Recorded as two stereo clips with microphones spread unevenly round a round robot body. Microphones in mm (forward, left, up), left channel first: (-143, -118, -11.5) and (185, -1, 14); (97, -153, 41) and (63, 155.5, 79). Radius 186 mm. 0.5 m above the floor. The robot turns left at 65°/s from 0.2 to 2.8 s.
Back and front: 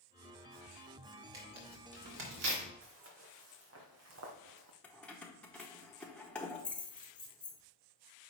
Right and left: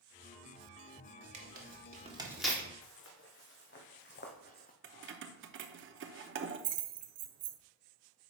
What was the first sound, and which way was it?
Tearing paper, 70° left.